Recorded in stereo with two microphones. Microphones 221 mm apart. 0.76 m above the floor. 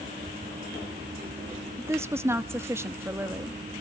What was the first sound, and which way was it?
A woman speaking, 10° right (ahead or behind).